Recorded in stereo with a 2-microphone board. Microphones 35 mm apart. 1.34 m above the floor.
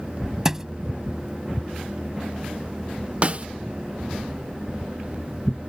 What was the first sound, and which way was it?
A thud, 15° right (ahead or behind).